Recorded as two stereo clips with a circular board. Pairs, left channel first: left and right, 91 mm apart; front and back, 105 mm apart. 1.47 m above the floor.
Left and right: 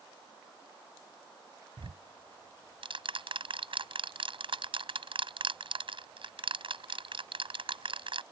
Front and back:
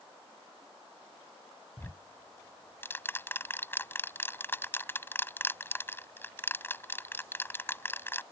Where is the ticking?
70° right.